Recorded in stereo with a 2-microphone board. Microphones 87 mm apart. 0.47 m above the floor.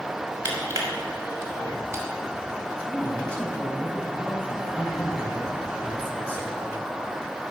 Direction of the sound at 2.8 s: 20° left (ahead or behind).